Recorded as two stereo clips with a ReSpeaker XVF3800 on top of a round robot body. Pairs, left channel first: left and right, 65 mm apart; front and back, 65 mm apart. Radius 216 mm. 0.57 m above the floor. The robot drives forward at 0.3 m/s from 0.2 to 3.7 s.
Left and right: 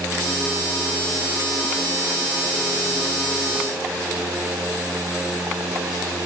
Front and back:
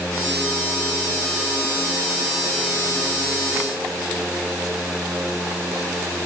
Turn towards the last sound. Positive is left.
No sound to turn to.